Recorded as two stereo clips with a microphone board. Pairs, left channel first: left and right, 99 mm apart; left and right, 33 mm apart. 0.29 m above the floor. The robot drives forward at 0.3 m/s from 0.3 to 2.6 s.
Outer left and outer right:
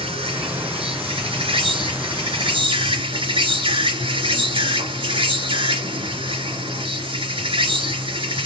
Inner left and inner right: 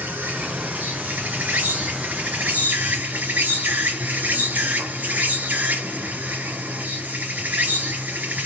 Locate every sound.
0.0 s an insect: 65° right (ahead or behind), 2 m; by 8.5 s 55° right (ahead or behind), 2.5 m